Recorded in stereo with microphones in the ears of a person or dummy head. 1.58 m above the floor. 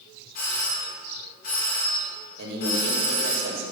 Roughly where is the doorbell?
Left.